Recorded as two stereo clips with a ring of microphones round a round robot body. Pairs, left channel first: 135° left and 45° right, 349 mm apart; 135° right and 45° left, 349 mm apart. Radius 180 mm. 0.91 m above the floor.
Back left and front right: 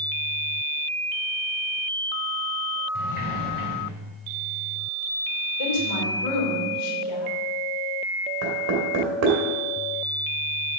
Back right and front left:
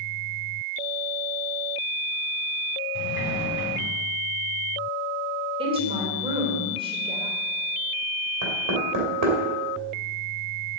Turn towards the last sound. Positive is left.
turn(degrees=5)